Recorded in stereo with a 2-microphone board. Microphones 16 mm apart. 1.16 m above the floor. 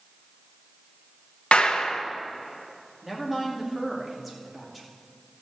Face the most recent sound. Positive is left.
turn(degrees=-10)  # may be behind; listen again after turning